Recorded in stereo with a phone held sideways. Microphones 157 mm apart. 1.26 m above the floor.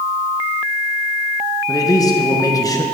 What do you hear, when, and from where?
1.7 s a man speaking: 20° left (ahead or behind), 1.2 m